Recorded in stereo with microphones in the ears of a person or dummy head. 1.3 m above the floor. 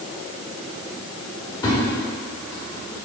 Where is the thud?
25° left (ahead or behind), 1.5 m.